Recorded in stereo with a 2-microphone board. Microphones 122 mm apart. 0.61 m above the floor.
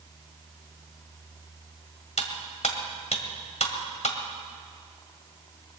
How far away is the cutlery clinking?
About 1.6 m.